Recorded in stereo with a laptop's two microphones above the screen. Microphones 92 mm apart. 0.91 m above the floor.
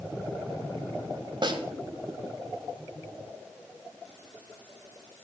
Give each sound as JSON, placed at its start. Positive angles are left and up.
{"t": 1.4, "sound": "a snare drum", "side_deg": -55, "distance_m": 1.1}